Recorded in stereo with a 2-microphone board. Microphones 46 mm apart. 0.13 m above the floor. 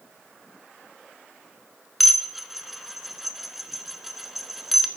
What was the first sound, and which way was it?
Dishes clattering, 5° right (ahead or behind).